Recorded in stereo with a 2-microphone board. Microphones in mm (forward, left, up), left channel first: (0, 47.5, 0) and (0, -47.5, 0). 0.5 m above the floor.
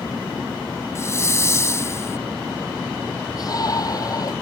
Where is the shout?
40° left (ahead or behind).